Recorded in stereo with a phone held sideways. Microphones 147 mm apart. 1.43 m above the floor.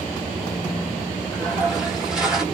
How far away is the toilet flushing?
About 1.4 m.